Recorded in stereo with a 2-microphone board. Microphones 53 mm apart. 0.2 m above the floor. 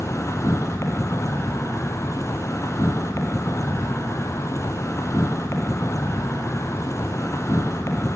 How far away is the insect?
About 2.5 m.